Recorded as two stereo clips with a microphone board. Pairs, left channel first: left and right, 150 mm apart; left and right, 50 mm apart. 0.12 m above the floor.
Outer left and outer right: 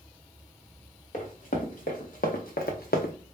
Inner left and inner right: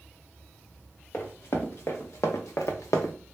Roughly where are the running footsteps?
Left.